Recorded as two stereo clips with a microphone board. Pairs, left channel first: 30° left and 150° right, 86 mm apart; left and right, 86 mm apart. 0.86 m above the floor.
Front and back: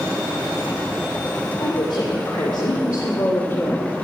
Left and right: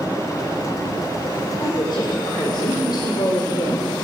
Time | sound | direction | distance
1.6 | a woman speaking | 55° left | 4 m